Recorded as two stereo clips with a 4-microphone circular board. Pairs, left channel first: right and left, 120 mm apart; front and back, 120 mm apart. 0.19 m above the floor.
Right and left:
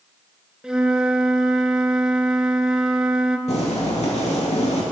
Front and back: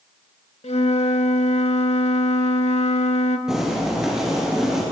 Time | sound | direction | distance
0.6 | a flute | 5° left | 0.5 m
3.5 | boiling | 95° right | 3 m